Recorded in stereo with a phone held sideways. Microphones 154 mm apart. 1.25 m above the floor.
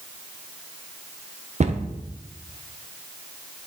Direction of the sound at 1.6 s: 45° right (ahead or behind).